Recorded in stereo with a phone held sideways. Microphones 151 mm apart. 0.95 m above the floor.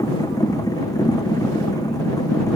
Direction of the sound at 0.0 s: 25° left (ahead or behind).